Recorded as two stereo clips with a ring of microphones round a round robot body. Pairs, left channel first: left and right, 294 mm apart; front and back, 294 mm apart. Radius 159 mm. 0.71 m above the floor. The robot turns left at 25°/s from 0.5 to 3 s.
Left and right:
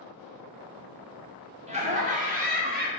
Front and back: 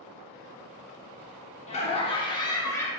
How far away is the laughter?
About 0.9 m.